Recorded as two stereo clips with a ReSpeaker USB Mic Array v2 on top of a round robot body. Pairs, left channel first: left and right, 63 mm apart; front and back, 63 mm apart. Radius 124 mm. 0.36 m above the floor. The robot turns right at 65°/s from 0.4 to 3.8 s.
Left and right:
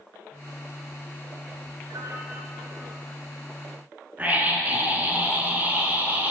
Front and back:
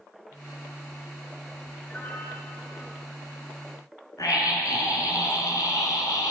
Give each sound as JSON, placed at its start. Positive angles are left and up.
{"t": 1.9, "sound": "a piano", "azimuth_deg": -75, "distance_m": 7.5}
{"t": 4.2, "sound": "a scream", "azimuth_deg": -25, "distance_m": 5.0}